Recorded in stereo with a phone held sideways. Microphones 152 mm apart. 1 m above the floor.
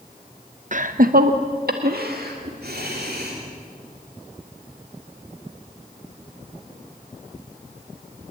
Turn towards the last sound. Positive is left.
turn(degrees=-80)